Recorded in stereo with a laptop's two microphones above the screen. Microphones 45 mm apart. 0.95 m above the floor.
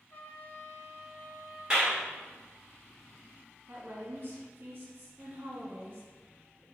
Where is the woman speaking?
45° right (ahead or behind), 1.4 m.